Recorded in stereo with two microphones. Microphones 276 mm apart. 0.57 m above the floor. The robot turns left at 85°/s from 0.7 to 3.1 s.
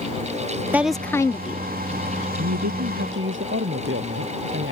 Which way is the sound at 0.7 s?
5° right (ahead or behind).